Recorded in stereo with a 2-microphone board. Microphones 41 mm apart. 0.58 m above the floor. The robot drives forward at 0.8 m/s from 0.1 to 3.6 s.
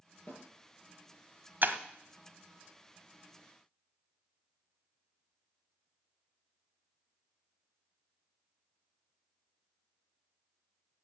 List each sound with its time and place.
0.3 s a snare drum: 50° left (ahead or behind), 5.5 m
1.6 s breaking glass: 50° right (ahead or behind), 1.2 m; by 1.8 s 45° right (ahead or behind), 1.3 m